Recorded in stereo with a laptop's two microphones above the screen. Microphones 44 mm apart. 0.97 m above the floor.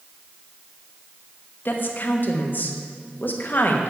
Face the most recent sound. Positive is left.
turn(degrees=50)  # may be behind; listen again after turning